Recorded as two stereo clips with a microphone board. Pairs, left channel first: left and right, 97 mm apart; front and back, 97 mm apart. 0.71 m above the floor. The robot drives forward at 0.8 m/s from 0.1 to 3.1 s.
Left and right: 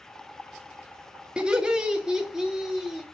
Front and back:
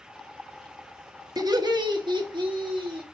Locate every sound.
1.4 s laughter: 165° right, 1.2 m; by 3.0 s 175° right, 2.5 m